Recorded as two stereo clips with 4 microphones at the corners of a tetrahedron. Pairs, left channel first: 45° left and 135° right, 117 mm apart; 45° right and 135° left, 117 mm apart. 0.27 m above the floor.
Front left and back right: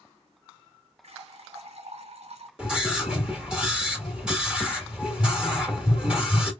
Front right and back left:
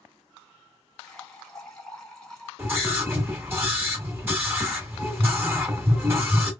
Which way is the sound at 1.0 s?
130° right.